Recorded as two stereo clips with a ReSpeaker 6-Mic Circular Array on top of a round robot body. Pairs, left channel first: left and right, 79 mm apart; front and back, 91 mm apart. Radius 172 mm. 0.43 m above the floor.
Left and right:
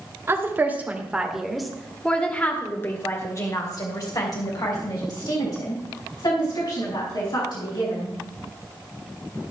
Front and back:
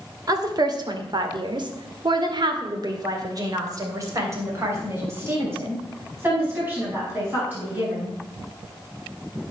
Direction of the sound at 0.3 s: 140° right.